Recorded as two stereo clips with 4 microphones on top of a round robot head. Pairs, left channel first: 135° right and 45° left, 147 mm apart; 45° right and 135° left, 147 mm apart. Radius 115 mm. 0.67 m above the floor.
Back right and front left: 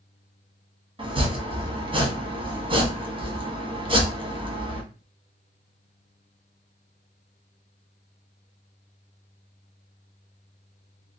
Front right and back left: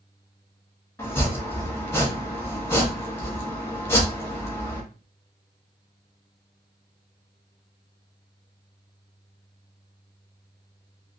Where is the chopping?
20° left, 1.1 m.